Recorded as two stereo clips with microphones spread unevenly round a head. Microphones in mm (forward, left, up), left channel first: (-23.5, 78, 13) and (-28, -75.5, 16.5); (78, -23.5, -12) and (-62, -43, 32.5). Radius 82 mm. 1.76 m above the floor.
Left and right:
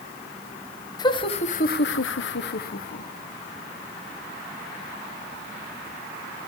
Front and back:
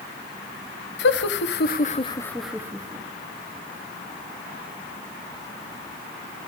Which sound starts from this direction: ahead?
Laughter, at 1.0 s.